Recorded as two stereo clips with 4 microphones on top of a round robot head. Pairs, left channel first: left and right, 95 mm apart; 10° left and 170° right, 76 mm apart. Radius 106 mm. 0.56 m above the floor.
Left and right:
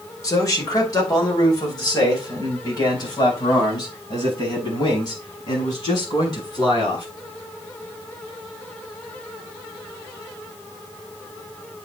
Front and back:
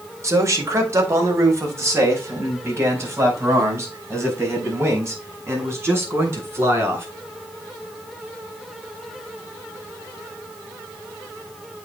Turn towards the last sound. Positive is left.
turn(degrees=135)